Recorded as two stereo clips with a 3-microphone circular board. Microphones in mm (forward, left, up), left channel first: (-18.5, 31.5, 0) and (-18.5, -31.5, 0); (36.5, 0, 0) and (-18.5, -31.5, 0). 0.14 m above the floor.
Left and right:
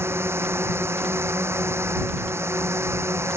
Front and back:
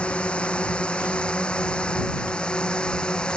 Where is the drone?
45° right.